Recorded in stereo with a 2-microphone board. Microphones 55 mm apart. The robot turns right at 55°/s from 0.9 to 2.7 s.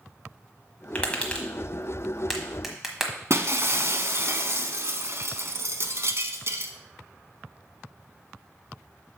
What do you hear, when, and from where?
0.9 s tapping: 25° left (ahead or behind), 1.2 m; by 3.1 s 5° right (ahead or behind), 1.2 m
3.3 s breaking glass: 55° right (ahead or behind), 0.6 m